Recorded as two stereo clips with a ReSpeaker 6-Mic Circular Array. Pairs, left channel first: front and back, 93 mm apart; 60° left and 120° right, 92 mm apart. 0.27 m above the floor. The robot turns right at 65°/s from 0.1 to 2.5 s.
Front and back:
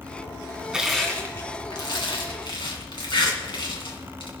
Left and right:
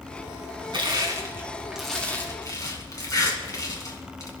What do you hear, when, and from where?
0.7 s crushing: 100° right, 2.5 m; by 4.3 s 15° left, 2.5 m